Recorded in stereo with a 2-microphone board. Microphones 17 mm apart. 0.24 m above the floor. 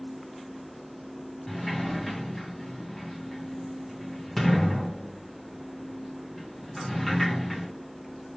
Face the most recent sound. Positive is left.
turn(degrees=10)  # may be behind; listen again after turning